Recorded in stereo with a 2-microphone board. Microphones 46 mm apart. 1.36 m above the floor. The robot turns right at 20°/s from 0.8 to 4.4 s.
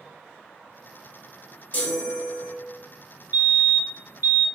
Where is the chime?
30° left (ahead or behind), 0.8 m.